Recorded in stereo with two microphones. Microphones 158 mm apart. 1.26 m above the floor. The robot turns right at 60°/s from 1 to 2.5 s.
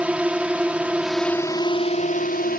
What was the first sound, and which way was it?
A drone, 10° right.